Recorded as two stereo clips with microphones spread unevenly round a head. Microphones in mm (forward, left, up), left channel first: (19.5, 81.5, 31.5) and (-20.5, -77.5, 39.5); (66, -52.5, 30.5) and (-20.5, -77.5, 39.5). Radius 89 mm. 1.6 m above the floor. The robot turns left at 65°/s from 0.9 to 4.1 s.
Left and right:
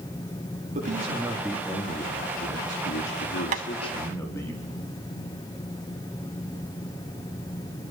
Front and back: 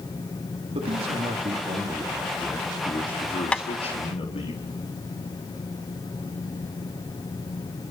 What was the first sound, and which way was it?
A man speaking, 150° right.